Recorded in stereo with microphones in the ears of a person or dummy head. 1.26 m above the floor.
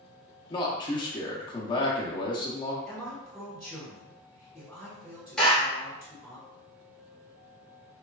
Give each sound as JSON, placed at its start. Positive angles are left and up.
{"t": 0.5, "sound": "a man speaking", "side_deg": 30, "distance_m": 0.6}
{"t": 2.9, "sound": "a man speaking", "side_deg": 0, "distance_m": 1.6}
{"t": 5.4, "sound": "a clap", "side_deg": 5, "distance_m": 1.0}